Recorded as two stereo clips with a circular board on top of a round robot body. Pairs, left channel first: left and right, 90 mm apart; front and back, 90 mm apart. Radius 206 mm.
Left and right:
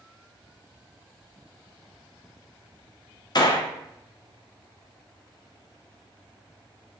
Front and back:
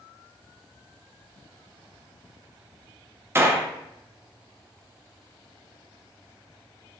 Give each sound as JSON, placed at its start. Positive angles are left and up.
{"t": 3.4, "sound": "a gunshot", "azimuth_deg": 120, "distance_m": 0.6}